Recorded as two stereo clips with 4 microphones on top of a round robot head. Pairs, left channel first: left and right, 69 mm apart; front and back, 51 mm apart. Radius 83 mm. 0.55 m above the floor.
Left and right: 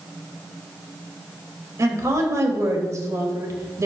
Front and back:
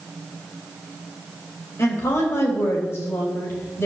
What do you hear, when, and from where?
1.8 s a woman speaking: 45° right, 3 m